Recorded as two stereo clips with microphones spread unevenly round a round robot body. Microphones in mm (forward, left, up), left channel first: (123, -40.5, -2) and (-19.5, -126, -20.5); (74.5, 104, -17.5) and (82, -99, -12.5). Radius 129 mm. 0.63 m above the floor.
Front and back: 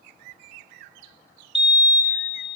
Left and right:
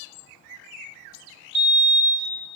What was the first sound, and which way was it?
A fire alarm, 70° right.